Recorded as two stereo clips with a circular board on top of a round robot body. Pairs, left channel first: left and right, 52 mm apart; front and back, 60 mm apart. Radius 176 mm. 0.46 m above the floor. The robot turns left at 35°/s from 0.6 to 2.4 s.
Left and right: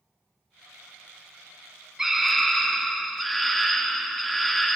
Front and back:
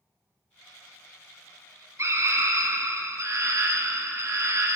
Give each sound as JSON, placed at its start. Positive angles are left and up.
{"t": 2.0, "sound": "a scream", "azimuth_deg": -170, "distance_m": 1.5}